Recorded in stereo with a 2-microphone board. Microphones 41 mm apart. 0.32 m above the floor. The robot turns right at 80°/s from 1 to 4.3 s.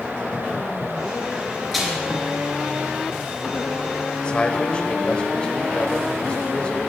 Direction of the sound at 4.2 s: 25° left (ahead or behind).